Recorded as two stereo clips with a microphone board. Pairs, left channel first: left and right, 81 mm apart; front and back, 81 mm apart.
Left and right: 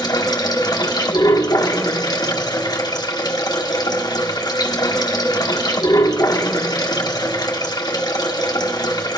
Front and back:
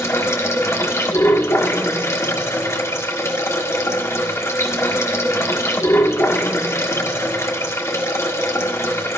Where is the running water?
55° left, 1.7 m.